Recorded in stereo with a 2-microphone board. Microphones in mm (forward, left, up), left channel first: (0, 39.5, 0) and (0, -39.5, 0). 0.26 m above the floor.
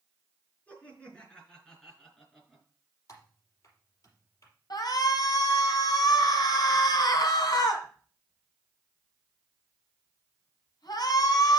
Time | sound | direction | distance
0.7 | laughter | 20° left (ahead or behind) | 4 m
3.1 | typing on a keyboard | 40° left (ahead or behind) | 4.5 m
4.7 | a shout | 60° left (ahead or behind) | 2.5 m